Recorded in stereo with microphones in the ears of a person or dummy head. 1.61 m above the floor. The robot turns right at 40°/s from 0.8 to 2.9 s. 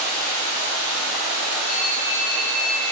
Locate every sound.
0.0 s running water: 170° left, 0.8 m; by 2.9 s 105° right, 0.8 m
1.6 s a phone ringing: 35° right, 1.2 m; by 2.9 s 15° left, 1.2 m